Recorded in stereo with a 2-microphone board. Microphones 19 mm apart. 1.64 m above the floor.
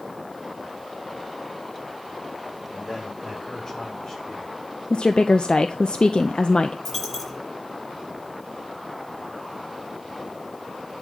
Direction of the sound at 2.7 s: 25° left (ahead or behind).